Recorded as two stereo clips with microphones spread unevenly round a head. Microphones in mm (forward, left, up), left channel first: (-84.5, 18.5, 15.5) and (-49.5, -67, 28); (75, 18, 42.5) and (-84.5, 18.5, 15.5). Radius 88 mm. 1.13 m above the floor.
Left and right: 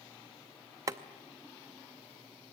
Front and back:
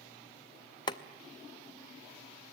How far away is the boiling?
About 0.5 m.